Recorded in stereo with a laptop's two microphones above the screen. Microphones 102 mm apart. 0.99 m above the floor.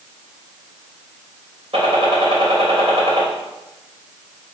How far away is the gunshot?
About 3 m.